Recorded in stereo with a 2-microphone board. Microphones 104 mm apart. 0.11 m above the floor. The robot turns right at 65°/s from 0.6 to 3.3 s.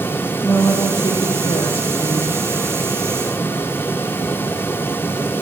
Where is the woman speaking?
30° left, 3 m; by 2.3 s 145° left, 3 m.